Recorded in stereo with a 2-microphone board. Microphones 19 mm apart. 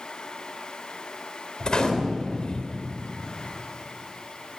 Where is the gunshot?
45° left (ahead or behind), 3.5 m.